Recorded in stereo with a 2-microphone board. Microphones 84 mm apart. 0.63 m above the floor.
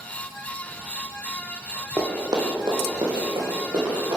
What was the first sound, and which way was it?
Running footsteps, 40° right (ahead or behind).